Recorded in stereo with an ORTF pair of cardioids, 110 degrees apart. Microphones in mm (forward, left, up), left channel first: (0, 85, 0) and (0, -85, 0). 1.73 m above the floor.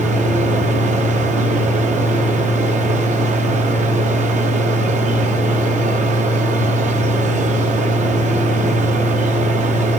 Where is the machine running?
45° right, 1.0 m.